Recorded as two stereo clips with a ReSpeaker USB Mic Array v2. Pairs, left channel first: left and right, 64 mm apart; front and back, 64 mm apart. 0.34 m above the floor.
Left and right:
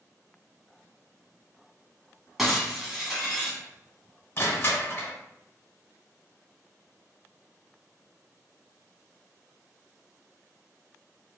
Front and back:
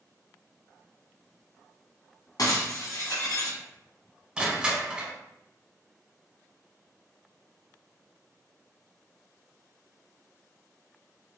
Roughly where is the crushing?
Left.